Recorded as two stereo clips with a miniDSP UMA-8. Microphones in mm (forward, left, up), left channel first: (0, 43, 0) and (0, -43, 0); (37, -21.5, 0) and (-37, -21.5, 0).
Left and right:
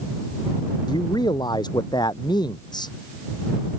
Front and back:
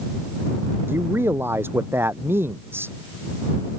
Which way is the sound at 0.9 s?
120° left.